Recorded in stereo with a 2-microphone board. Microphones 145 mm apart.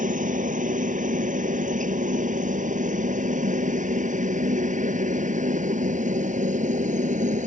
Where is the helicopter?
65° right (ahead or behind); by 7.5 s 60° right (ahead or behind).